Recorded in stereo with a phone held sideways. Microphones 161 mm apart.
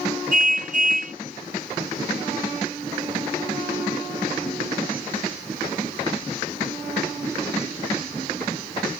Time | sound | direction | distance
0.3 | a car horn | 55° right (ahead or behind) | ?